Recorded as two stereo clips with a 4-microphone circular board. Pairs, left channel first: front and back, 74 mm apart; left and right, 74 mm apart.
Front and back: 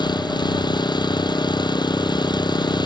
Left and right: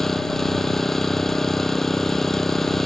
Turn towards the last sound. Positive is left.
turn(degrees=5)